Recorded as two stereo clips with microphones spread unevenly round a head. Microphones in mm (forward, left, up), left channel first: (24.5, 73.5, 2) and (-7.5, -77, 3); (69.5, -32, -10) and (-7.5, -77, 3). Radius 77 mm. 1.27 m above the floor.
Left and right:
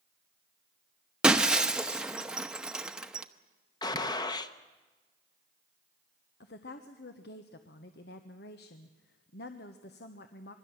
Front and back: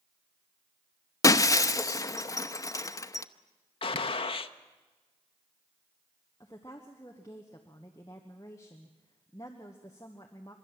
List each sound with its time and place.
1.2 s breaking glass: 20° right, 0.8 m
3.8 s a gunshot: 10° left, 0.9 m
6.4 s a woman speaking: 95° left, 1.1 m